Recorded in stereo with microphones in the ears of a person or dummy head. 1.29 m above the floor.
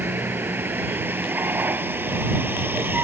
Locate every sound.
0.0 s a vehicle: 10° right (ahead or behind)